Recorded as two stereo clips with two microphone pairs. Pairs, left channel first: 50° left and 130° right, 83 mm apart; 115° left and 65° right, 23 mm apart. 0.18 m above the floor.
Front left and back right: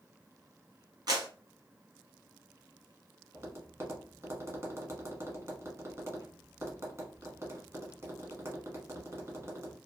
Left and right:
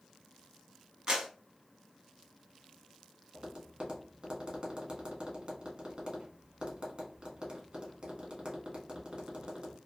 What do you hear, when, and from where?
1.1 s a clap: 120° right, 1.4 m
3.3 s tapping: 90° right, 1.0 m